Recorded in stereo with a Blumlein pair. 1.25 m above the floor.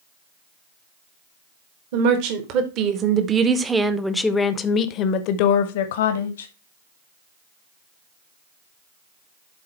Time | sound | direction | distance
1.9 | a woman speaking | 45° right | 1.5 m